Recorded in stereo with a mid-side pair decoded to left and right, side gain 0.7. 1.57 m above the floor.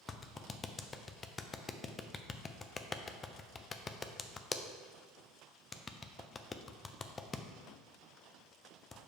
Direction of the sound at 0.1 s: 25° left.